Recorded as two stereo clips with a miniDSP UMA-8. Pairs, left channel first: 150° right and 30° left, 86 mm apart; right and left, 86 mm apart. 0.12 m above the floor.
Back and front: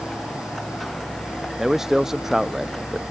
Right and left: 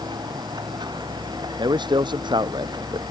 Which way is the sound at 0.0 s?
120° left.